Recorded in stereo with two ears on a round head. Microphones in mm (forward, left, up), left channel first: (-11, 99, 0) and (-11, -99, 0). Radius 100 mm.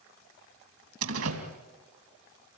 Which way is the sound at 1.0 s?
80° right.